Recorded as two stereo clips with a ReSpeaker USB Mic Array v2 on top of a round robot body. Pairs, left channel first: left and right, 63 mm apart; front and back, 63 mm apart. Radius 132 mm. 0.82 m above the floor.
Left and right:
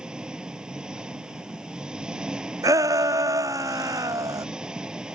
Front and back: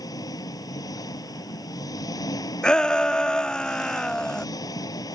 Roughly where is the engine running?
Ahead.